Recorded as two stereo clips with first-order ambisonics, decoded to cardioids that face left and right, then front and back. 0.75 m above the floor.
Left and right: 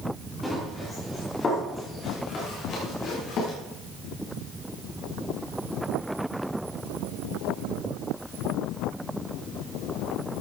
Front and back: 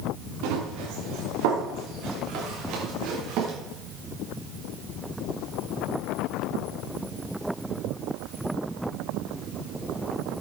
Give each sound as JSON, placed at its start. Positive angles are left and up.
{"t": 0.4, "sound": "running footsteps", "azimuth_deg": 170, "distance_m": 5.5}